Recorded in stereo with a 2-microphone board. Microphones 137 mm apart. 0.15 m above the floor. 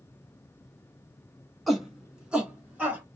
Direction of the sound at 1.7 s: Centre (ahead or behind).